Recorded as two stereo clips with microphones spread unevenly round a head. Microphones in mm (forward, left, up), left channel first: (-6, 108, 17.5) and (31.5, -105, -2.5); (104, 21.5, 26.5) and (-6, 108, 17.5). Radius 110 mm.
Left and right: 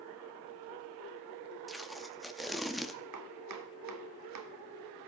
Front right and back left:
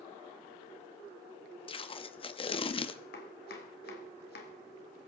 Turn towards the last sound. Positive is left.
turn(degrees=-75)